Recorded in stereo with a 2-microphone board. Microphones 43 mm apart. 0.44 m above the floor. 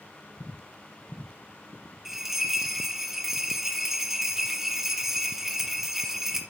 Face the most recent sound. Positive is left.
turn(degrees=-5)  # may be behind; listen again after turning